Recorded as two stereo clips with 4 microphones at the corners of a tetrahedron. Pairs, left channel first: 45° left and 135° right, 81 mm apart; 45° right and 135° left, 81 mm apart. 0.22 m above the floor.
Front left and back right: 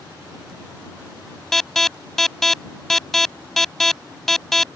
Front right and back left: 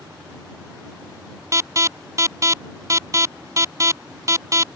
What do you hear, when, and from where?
1.5 s an alarm: 130° left